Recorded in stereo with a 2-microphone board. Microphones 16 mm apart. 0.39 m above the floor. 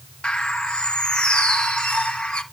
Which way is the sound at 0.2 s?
70° left (ahead or behind).